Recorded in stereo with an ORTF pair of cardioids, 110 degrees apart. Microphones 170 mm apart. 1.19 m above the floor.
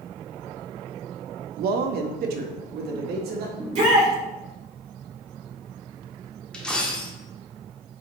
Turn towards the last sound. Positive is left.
turn(degrees=5)